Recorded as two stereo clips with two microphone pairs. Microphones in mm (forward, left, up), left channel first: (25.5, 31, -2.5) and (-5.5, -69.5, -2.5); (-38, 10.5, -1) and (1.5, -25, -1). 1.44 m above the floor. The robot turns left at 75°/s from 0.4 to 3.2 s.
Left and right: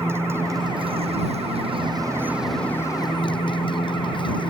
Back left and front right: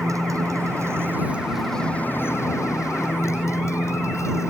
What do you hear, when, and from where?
0.0 s a motorcycle: 40° right; by 4.5 s 110° left